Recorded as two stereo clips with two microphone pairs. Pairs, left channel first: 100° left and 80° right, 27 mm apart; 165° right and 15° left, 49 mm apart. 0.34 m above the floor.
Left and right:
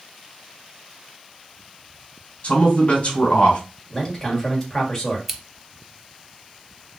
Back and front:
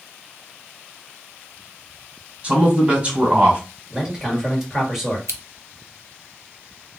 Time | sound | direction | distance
2.4 | a man speaking | 70° left | 2.5 m
3.9 | a man speaking | 80° left | 1.4 m
5.3 | scissors | 5° left | 0.6 m